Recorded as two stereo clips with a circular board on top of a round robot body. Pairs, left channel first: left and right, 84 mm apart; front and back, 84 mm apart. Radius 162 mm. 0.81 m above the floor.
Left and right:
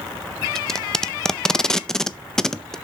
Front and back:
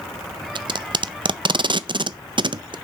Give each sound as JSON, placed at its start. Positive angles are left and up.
{"t": 0.6, "sound": "tape being pulled", "azimuth_deg": 170, "distance_m": 0.6}